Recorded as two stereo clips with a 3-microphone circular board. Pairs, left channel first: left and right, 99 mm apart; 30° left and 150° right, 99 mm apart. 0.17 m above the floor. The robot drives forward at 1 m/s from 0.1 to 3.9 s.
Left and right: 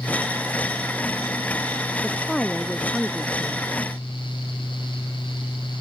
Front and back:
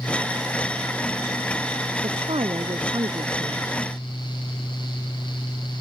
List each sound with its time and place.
2.0 s a woman speaking: 175° left